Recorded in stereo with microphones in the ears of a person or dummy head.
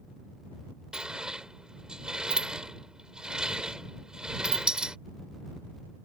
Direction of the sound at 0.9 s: 5° right (ahead or behind).